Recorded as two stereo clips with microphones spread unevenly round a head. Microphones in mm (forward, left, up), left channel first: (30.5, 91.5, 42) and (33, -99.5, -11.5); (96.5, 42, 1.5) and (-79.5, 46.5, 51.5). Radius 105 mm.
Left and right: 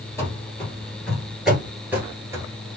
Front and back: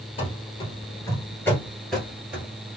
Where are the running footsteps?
60° left, 1.5 m; by 2.8 s 175° right, 1.5 m.